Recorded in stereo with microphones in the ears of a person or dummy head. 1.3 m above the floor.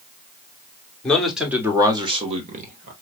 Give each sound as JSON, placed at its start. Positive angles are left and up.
{"t": 1.0, "sound": "a man speaking", "side_deg": 5, "distance_m": 1.2}